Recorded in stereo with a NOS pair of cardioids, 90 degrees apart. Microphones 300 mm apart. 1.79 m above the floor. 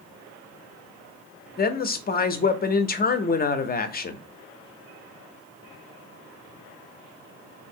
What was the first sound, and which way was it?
A woman speaking, 30° left.